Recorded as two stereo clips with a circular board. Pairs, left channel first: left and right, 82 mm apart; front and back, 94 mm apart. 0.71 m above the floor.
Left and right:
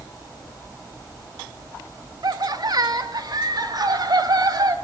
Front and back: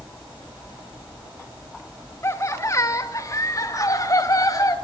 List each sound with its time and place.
2.2 s laughter: 55° right, 2.5 m; by 4.7 s 50° right, 5 m